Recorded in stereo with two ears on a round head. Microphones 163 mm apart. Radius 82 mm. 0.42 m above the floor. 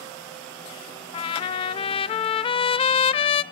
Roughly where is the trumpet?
Left.